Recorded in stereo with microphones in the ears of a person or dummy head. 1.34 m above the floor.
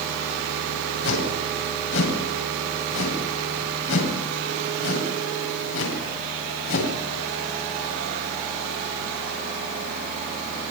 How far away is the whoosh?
About 8.5 m.